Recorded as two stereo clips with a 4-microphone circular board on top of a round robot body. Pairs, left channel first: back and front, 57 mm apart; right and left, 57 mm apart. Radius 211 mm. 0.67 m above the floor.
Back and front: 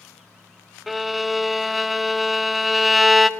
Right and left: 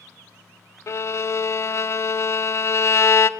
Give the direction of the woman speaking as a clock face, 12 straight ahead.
I don't hear a woman speaking.